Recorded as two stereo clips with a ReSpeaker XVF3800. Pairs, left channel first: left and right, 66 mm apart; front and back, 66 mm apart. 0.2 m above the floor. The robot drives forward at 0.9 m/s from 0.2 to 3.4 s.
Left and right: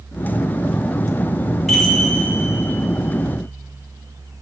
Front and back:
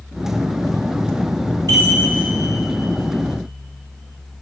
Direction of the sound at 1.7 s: 175° left.